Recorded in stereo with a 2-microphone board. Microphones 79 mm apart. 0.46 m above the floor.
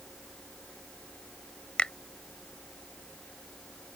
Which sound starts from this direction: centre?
A finger snap, at 1.8 s.